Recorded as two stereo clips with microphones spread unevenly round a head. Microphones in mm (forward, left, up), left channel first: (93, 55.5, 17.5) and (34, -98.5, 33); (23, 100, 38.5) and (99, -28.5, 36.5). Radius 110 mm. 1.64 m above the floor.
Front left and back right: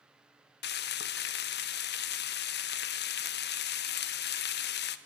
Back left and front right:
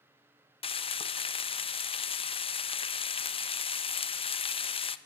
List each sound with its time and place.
0.6 s frying: 80° left, 1.1 m